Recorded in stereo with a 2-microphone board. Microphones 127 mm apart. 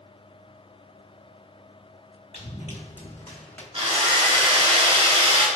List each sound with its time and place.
2.3 s running footsteps: 65° left (ahead or behind), 1.2 m; by 3.6 s 10° left (ahead or behind), 1.0 m
3.7 s a drill: 45° right (ahead or behind), 1.0 m